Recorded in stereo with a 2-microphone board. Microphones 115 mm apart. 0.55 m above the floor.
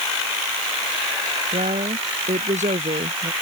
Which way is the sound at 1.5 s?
80° right.